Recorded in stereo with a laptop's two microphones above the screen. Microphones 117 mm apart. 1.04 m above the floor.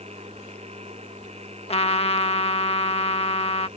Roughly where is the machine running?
Right.